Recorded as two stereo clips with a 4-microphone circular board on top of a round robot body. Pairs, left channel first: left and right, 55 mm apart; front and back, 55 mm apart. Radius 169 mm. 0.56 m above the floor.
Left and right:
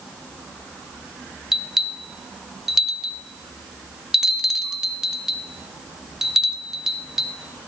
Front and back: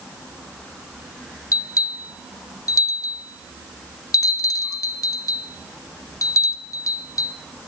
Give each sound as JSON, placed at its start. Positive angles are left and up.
{"t": 1.5, "sound": "a bell", "azimuth_deg": -10, "distance_m": 0.6}